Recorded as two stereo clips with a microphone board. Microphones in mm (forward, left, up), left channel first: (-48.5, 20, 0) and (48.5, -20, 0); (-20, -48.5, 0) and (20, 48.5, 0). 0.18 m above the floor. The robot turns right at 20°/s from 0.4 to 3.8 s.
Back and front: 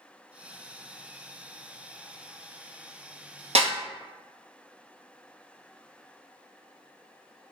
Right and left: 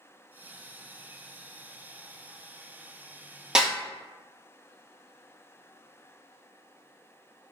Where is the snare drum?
15° right, 0.6 m.